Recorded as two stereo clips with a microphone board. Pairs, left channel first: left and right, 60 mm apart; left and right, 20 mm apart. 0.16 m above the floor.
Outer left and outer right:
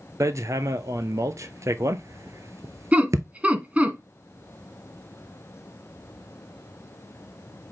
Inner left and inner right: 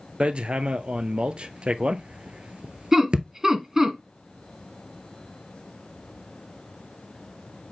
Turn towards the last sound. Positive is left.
turn(degrees=-25)  # may be behind; listen again after turning